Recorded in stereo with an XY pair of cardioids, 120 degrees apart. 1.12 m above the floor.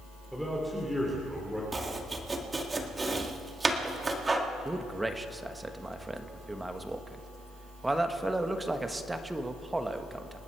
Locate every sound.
0.3 s a man speaking: straight ahead, 3 m
1.7 s chopping: 20° right, 1.7 m
4.7 s a man speaking: 10° right, 1.3 m